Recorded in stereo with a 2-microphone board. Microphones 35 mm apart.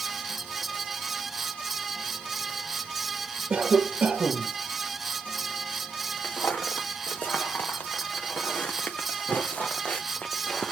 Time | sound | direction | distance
3.5 | a cough | 35° right (ahead or behind) | 2 m
6.2 | footsteps | 85° left | 2.5 m